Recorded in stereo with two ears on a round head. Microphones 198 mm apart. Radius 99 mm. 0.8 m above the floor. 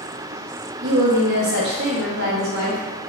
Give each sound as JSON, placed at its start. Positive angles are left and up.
{"t": 0.8, "sound": "a woman speaking", "side_deg": -50, "distance_m": 1.2}